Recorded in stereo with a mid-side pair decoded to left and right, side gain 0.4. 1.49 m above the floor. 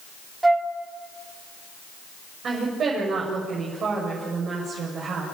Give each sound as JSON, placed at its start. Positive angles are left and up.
{"t": 0.4, "sound": "a flute", "azimuth_deg": -20, "distance_m": 2.5}
{"t": 2.4, "sound": "a woman speaking", "azimuth_deg": -60, "distance_m": 7.0}